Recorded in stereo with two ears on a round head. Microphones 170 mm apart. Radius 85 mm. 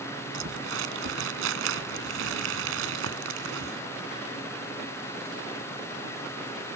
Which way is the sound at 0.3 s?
75° right (ahead or behind).